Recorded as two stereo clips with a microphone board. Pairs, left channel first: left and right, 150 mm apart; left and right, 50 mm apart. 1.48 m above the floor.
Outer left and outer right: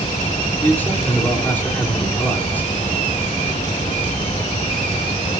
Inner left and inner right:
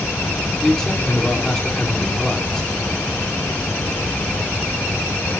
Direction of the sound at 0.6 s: 10° left (ahead or behind).